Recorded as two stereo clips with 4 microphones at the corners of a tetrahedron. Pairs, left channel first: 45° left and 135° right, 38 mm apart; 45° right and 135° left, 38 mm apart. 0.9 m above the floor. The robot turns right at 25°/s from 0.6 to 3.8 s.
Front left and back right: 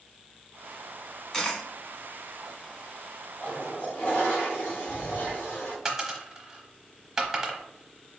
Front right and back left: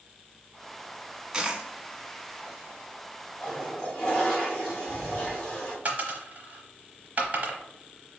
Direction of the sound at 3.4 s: 20° left.